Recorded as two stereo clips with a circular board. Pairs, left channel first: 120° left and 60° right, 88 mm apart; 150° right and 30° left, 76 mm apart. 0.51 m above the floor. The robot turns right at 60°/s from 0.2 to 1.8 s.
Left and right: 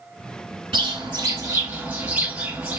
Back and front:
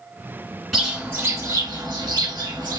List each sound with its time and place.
0.7 s a bird: 55° right, 1.5 m; by 2.8 s 10° left, 1.5 m